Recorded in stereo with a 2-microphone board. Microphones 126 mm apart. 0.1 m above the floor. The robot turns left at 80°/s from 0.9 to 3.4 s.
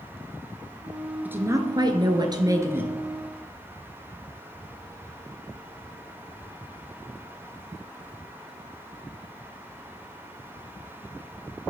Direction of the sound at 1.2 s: 25° right.